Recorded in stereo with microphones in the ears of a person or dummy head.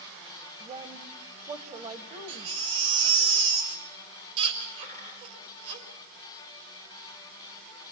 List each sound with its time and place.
0.6 s a woman speaking: 30° right (ahead or behind), 1.2 m
2.3 s a baby crying: 65° right (ahead or behind), 4 m
4.8 s a dropped coin: 45° right (ahead or behind), 7.5 m